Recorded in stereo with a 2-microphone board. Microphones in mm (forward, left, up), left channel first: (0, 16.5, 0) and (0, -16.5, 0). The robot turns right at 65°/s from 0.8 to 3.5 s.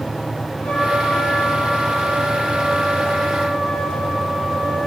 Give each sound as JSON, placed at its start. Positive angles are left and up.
{"t": 0.6, "sound": "a trumpet", "azimuth_deg": 15, "distance_m": 5.0}